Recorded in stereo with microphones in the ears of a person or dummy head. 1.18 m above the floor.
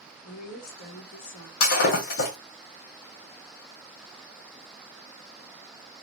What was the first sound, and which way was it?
A woman speaking, 40° left (ahead or behind).